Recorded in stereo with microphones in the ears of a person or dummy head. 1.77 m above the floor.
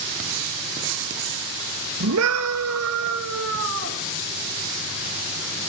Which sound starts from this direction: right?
A scream, at 2.0 s.